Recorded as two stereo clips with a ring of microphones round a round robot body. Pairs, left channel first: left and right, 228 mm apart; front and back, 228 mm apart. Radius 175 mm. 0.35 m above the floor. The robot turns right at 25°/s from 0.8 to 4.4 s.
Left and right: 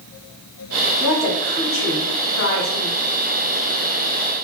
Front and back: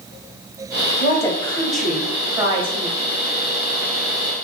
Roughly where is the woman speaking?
Left.